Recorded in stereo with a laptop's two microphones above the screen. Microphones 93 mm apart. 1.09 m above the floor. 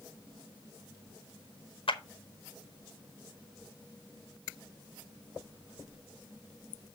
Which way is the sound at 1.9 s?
70° left (ahead or behind).